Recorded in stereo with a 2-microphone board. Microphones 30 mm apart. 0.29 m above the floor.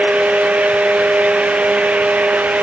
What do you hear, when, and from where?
Only background noise.